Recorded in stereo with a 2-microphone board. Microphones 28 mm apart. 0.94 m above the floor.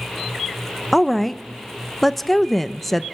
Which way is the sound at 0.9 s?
10° left (ahead or behind).